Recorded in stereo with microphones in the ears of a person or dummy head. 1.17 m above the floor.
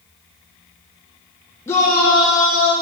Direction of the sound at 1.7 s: 10° left (ahead or behind).